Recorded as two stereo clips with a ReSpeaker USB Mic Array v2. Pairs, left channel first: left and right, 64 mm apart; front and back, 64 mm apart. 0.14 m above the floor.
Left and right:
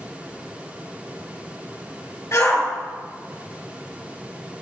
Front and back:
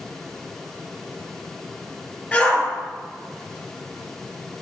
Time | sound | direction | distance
2.3 | a shout | 65° left | 3 m